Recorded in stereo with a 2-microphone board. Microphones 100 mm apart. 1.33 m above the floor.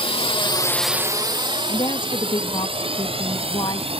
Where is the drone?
75° left (ahead or behind); by 4.0 s 75° right (ahead or behind).